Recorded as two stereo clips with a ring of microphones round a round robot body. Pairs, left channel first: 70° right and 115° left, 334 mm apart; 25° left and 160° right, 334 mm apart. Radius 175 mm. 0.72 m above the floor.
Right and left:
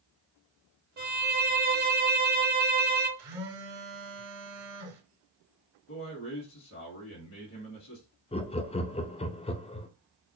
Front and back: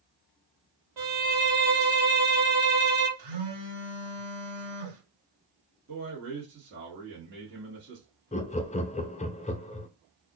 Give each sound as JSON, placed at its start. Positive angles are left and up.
{"t": 1.0, "sound": "a violin", "azimuth_deg": 175, "distance_m": 1.1}
{"t": 3.2, "sound": "a phone buzzing", "azimuth_deg": 160, "distance_m": 1.5}
{"t": 5.9, "sound": "a man speaking", "azimuth_deg": -105, "distance_m": 1.4}
{"t": 8.3, "sound": "laughter", "azimuth_deg": -20, "distance_m": 0.5}